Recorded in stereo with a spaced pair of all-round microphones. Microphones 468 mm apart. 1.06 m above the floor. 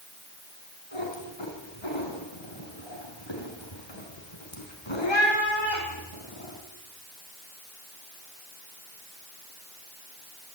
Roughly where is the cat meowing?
Left.